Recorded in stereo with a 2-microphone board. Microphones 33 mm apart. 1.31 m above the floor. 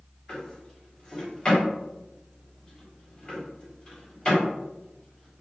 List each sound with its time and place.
0.3 s a drawer: 30° left (ahead or behind), 1.3 m